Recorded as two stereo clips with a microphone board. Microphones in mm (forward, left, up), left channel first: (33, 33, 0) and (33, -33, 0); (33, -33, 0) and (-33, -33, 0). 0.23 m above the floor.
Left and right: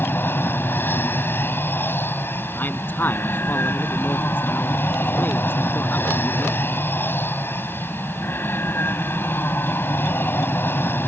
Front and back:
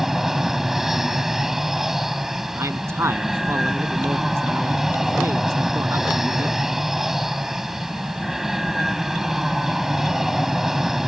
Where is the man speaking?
145° left.